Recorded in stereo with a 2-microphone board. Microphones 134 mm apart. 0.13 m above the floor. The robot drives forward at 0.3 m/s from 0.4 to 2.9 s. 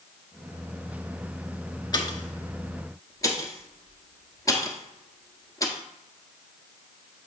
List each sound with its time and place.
1.9 s a pop: 30° left (ahead or behind), 0.8 m; by 5.8 s 25° left (ahead or behind), 1.0 m